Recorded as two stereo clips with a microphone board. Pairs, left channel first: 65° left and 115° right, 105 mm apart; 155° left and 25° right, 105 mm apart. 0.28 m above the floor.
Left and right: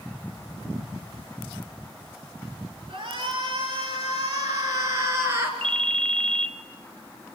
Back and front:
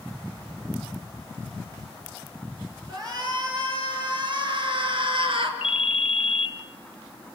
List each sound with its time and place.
2.9 s a shout: 75° right, 7.5 m; by 5.5 s 45° right, 5 m
5.6 s a ringtone: 150° left, 1.2 m